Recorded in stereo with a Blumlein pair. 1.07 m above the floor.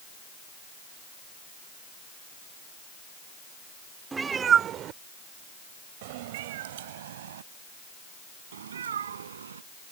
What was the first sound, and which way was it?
A cat meowing, 10° right.